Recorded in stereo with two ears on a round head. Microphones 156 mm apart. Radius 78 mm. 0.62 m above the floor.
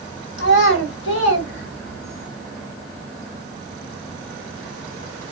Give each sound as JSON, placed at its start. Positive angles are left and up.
{"t": 0.4, "sound": "a child speaking", "side_deg": 80, "distance_m": 1.8}